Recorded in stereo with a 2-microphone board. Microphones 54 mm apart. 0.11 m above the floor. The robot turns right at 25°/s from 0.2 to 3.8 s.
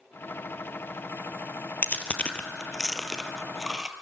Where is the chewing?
30° left (ahead or behind), 1.3 m; by 3.9 s 15° right (ahead or behind), 1.3 m.